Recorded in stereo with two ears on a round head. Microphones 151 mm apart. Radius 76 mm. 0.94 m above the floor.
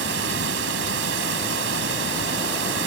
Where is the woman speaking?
No woman speaking in this recording.